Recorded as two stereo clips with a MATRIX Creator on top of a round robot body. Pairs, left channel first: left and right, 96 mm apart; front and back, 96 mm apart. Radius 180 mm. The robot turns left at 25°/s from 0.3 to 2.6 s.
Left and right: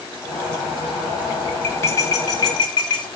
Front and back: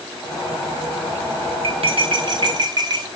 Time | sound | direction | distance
1.6 | cutlery clinking | 160° left | 1.4 m